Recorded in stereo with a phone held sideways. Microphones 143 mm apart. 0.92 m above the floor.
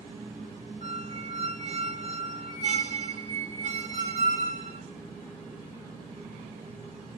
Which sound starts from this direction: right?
A squeak, at 0.8 s.